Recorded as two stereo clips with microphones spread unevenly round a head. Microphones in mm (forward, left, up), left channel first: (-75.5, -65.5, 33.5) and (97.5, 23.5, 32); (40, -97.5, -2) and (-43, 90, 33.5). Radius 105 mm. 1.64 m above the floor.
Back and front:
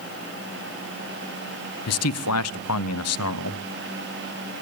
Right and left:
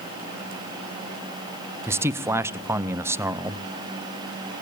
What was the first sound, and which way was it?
A man speaking, 170° right.